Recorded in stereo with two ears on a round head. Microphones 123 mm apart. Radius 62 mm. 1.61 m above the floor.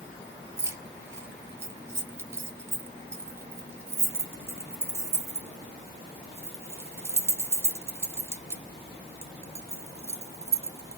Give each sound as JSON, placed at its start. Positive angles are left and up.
{"t": 0.6, "sound": "keys jangling", "side_deg": -20, "distance_m": 0.8}